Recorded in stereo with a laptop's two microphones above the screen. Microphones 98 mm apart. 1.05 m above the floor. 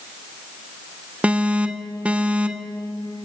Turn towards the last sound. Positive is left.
turn(degrees=-10)  # may be behind; listen again after turning